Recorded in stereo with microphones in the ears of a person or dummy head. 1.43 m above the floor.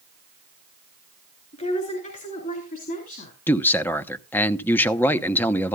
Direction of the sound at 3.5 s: 5° left (ahead or behind).